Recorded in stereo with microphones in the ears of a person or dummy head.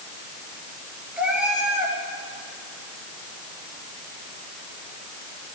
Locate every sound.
1.2 s a cat meowing: 5° right (ahead or behind), 3 m